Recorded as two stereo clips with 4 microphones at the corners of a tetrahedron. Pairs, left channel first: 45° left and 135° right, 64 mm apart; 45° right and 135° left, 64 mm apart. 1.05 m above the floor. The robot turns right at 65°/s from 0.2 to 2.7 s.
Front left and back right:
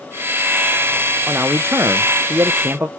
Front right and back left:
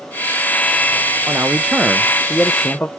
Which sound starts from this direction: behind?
A man speaking, at 1.3 s.